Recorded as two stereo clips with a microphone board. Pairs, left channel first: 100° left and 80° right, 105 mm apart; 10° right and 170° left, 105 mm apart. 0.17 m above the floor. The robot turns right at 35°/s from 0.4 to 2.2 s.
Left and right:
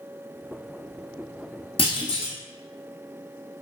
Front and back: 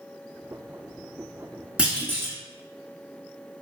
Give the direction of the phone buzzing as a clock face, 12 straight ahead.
I don't hear a phone buzzing.